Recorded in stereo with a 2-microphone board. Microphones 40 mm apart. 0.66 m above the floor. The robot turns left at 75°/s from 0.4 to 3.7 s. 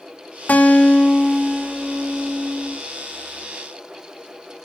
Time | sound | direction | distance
0.5 | a guitar | 60° left | 2.5 m